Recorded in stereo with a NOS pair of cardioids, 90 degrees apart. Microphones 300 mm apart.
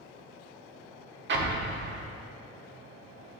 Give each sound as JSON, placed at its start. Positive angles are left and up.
{"t": 1.3, "sound": "an explosion", "azimuth_deg": -40, "distance_m": 1.2}